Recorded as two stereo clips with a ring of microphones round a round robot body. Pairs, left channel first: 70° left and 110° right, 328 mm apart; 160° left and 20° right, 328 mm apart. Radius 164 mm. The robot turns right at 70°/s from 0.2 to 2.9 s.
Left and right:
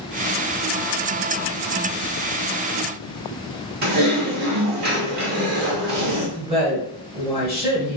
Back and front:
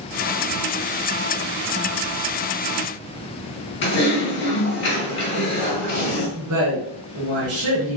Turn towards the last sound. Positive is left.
turn(degrees=-45)